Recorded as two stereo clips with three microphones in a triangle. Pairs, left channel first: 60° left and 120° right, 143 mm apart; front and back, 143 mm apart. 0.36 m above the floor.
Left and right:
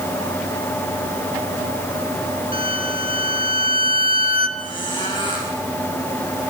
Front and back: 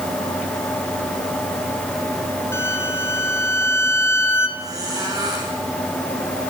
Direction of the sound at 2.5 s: 70° left.